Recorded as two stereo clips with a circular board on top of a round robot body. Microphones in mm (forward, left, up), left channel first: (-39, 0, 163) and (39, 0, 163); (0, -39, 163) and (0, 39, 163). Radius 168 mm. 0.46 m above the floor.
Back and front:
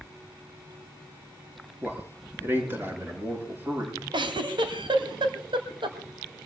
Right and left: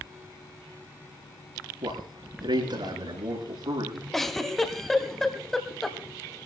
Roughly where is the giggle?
Ahead.